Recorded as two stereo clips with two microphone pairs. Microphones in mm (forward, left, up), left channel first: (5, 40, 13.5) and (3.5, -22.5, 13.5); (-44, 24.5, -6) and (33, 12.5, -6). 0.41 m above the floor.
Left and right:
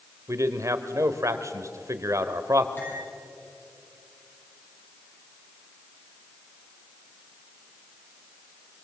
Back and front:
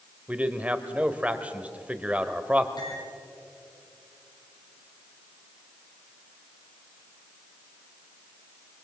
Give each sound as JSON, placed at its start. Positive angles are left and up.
{"t": 0.3, "sound": "a man speaking", "azimuth_deg": -75, "distance_m": 1.5}
{"t": 2.8, "sound": "cutlery clinking", "azimuth_deg": 145, "distance_m": 9.0}